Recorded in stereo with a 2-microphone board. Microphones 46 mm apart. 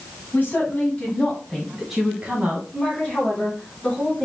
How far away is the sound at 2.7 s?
About 3 m.